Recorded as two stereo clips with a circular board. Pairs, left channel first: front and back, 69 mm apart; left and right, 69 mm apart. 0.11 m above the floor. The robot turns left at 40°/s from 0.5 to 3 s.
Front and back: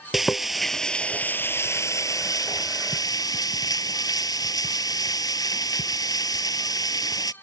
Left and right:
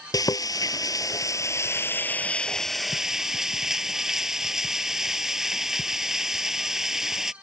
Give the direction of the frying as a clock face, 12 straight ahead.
9 o'clock.